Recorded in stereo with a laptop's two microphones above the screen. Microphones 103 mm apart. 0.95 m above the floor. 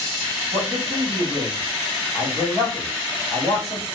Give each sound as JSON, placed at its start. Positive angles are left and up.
{"t": 0.5, "sound": "a man speaking", "side_deg": -75, "distance_m": 2.0}